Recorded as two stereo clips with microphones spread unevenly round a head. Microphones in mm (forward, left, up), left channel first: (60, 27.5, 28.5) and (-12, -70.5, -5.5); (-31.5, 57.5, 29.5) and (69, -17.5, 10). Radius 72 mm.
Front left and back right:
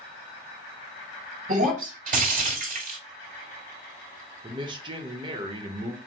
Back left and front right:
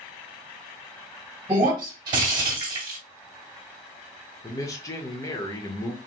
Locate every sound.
1.5 s breaking glass: 100° right, 2 m
4.4 s a man speaking: 150° right, 1.0 m